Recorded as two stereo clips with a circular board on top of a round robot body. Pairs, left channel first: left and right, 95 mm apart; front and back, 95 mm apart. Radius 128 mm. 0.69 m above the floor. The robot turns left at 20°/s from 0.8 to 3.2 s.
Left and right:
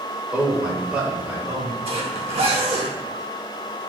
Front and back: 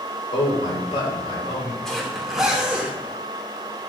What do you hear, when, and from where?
0.3 s a man speaking: 10° right, 3 m; by 1.8 s 30° right, 3 m
1.9 s a zipper: 85° right, 2 m; by 3.9 s 110° right, 2 m